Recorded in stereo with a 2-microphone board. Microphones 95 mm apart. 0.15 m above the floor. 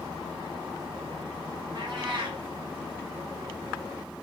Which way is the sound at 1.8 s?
50° right (ahead or behind).